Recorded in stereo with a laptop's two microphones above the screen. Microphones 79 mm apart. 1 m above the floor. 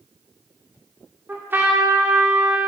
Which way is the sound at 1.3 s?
25° right (ahead or behind).